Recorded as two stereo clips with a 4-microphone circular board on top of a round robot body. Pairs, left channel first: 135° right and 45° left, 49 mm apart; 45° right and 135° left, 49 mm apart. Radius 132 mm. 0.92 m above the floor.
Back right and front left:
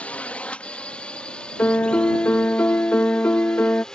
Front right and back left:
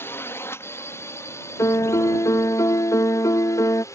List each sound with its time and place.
0.0 s a drone: 75° right; by 3.9 s 60° right
1.6 s a piano: 75° right